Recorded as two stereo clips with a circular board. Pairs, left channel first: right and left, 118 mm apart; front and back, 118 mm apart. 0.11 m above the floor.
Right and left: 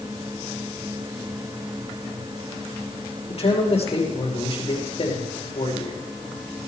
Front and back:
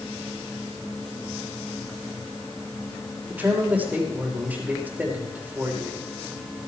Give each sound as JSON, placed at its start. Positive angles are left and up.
{"t": 3.3, "sound": "a man speaking", "azimuth_deg": -105, "distance_m": 5.5}